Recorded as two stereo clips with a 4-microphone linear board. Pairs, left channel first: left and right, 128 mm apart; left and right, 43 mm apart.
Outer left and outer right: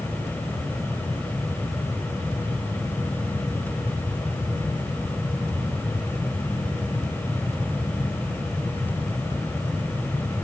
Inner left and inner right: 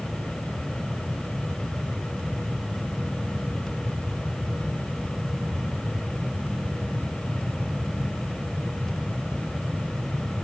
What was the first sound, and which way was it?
Only background noise.